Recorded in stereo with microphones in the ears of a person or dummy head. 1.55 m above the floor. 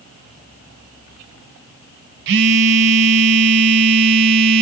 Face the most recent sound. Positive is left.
turn(degrees=-65)  # may be behind; listen again after turning